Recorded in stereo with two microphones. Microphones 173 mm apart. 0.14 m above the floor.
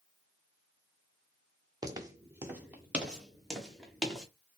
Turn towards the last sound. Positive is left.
turn(degrees=5)  # may be behind; listen again after turning